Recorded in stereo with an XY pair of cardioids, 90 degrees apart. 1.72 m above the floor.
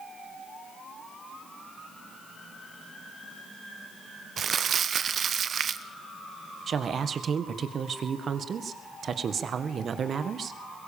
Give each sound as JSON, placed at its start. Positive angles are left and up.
{"t": 4.4, "sound": "crumpling", "azimuth_deg": -55, "distance_m": 1.0}
{"t": 6.7, "sound": "a woman speaking", "azimuth_deg": -55, "distance_m": 1.7}